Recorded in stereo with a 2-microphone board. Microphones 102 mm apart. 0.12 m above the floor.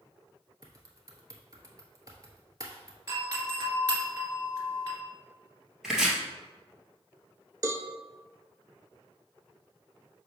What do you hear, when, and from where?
0.6 s typing on a keyboard: 35° right (ahead or behind), 1.1 m
3.1 s a doorbell: 35° right (ahead or behind), 2 m
5.8 s chopping: 5° right (ahead or behind), 1.8 m
7.6 s a cowbell: 35° right (ahead or behind), 0.6 m